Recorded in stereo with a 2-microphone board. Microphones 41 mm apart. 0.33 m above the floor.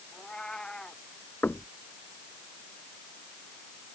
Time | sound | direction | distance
0.1 | a cat meowing | 20° left (ahead or behind) | ?
1.4 | knocking | 55° left (ahead or behind) | ?